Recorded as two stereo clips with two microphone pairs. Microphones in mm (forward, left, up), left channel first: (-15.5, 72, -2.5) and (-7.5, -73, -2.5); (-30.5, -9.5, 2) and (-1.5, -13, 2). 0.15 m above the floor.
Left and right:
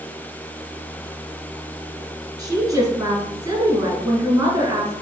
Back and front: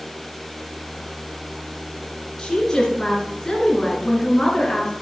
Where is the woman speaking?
140° right, 1.6 m.